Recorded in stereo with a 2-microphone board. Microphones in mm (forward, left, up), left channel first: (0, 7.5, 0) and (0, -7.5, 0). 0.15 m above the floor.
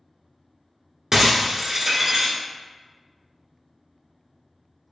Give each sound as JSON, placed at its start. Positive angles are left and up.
{"t": 1.1, "sound": "breaking glass", "side_deg": -30, "distance_m": 1.2}